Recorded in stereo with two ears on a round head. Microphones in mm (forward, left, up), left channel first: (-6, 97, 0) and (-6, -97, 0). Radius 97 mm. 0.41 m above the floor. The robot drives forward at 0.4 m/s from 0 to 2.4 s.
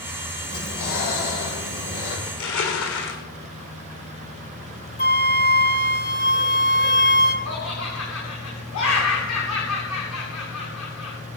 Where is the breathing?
85° left, 8.5 m; by 2.2 s 80° left, 8.5 m.